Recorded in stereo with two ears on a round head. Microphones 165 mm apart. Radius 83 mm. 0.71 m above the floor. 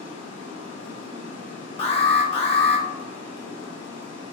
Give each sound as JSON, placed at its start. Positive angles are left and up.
{"t": 0.0, "sound": "running water", "side_deg": 75, "distance_m": 1.1}
{"t": 1.8, "sound": "an alarm", "side_deg": 30, "distance_m": 1.0}